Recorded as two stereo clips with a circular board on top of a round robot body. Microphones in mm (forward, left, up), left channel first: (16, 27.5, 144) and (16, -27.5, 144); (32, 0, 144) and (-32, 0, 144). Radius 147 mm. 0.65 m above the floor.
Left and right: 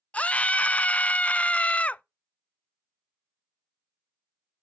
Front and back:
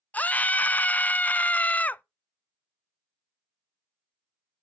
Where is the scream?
45° left, 0.5 m.